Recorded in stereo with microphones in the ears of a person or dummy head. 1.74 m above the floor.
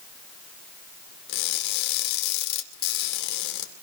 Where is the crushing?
60° left (ahead or behind), 2.5 m.